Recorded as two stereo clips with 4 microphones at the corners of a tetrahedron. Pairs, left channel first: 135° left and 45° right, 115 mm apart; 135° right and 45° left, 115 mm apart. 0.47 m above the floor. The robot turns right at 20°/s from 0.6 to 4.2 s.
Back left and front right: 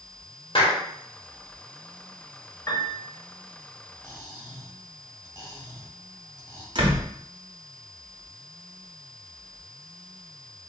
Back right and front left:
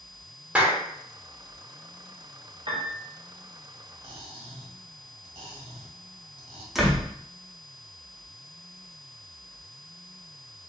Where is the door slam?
40° right, 0.8 m.